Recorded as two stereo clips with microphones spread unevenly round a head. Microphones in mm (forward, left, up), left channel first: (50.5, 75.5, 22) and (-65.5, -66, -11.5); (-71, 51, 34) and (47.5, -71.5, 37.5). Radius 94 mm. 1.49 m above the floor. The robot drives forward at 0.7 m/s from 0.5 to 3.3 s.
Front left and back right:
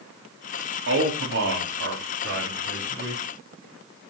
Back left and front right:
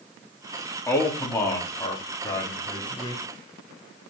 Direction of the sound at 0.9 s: 150° right.